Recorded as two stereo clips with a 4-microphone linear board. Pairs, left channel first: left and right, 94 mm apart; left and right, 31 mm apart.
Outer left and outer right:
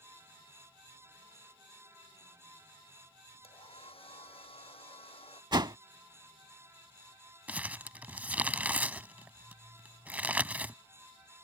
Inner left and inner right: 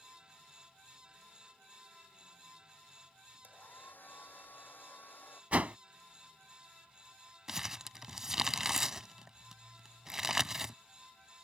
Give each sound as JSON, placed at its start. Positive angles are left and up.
{"t": 3.4, "sound": "a hair dryer", "side_deg": 90}
{"t": 5.5, "sound": "a whoosh", "side_deg": -50}
{"t": 7.5, "sound": "crumpling", "side_deg": -15}